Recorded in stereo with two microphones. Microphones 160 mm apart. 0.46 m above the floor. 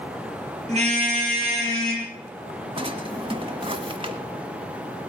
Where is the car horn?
45° right (ahead or behind), 6 m; by 2.1 s 35° right (ahead or behind), 7 m.